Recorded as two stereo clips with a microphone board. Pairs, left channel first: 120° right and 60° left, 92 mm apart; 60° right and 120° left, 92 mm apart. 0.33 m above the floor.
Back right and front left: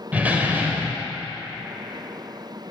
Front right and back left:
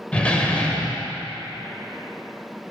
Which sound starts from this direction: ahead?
A door slam, at 0.1 s.